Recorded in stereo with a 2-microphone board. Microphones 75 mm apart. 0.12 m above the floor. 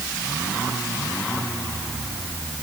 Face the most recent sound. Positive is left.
No sound to turn to.